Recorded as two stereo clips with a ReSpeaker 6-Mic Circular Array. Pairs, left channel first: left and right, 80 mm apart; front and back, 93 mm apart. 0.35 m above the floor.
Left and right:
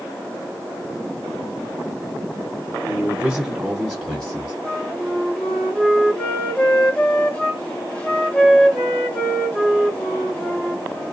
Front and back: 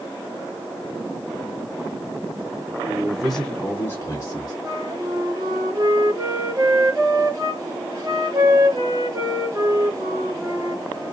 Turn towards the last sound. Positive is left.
turn(degrees=155)